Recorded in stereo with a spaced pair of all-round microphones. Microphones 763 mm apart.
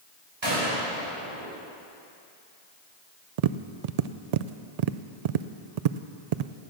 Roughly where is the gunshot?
Right.